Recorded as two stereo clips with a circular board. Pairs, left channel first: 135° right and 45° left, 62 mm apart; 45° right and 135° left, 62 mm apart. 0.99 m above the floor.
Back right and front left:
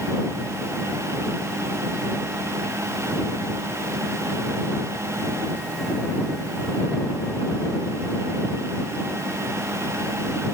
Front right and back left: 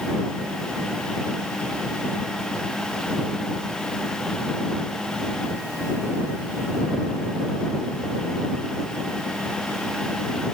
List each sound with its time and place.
Only background noise.